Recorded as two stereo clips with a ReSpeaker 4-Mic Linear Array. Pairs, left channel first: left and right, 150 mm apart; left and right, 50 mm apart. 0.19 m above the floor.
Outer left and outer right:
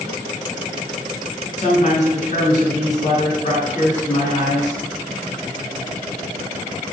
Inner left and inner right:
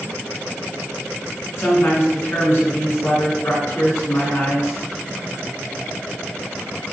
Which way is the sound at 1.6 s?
55° left (ahead or behind).